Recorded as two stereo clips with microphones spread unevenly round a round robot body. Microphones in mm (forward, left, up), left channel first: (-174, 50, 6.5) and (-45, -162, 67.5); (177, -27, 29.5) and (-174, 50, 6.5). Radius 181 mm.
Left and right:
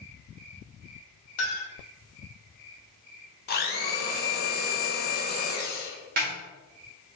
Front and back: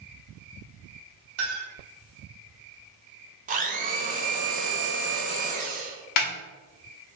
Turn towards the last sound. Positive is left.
turn(degrees=5)